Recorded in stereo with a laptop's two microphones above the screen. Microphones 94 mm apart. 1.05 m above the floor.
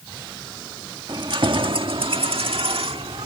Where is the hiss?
I don't hear a hiss.